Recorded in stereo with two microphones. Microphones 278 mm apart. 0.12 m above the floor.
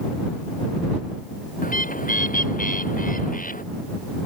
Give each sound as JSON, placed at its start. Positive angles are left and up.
{"t": 1.6, "sound": "a bird", "side_deg": 30}